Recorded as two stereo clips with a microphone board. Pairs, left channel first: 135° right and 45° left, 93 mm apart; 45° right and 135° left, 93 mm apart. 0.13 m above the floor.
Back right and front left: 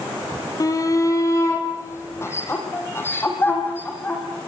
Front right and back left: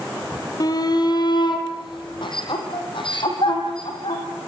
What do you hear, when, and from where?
0.6 s a shout: 85° right, 4 m; by 4.2 s 65° right, 8 m